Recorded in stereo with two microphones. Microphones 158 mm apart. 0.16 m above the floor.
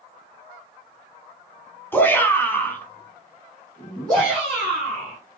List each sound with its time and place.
1.9 s a shout: 15° left (ahead or behind), 1.3 m; by 5.2 s 5° left (ahead or behind), 2.5 m